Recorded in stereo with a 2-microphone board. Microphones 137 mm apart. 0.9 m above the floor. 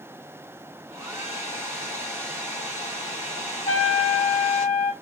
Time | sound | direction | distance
0.9 | a hair dryer | 20° right (ahead or behind) | 1.0 m
3.7 | a trumpet | 40° left (ahead or behind) | 1.2 m